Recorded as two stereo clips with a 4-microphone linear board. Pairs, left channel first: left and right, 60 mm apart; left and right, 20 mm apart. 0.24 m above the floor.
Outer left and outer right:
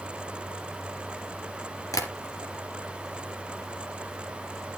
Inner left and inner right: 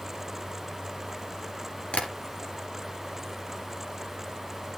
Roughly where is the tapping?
Left.